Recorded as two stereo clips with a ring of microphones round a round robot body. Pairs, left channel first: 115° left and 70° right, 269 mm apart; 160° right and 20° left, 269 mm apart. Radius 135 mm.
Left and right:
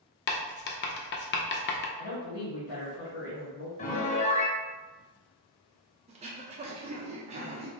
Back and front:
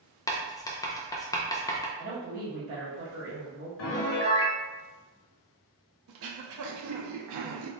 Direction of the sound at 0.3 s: 130° left.